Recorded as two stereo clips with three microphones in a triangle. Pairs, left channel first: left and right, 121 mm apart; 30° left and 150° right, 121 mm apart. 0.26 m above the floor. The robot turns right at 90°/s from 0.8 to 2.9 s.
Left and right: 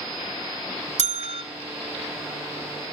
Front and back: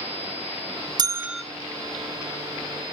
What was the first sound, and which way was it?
A bell, 100° right.